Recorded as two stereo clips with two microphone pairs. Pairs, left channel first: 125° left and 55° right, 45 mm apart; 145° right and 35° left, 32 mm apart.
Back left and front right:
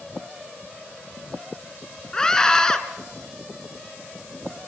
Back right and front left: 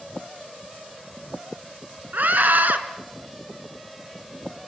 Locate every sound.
2.1 s a scream: 50° left, 3.5 m